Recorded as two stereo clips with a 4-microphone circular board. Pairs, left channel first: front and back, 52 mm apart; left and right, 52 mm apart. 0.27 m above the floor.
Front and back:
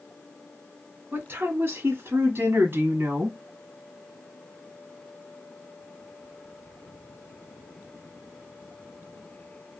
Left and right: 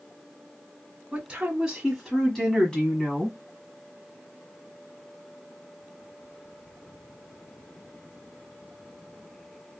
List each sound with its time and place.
1.1 s a woman speaking: 155° right, 1.5 m; by 3.4 s 150° left, 1.8 m